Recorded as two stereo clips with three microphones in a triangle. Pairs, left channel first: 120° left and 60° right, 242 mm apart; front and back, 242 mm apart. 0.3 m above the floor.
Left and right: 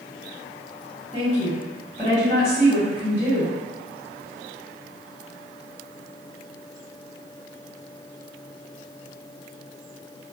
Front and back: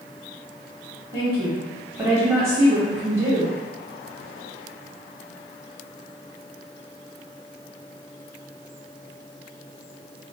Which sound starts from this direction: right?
A woman speaking, at 1.1 s.